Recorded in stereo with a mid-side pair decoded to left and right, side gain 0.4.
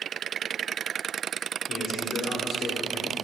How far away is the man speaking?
About 5 m.